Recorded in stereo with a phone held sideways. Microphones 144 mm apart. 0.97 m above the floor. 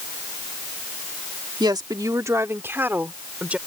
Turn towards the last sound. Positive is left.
turn(degrees=-10)  # may be behind; listen again after turning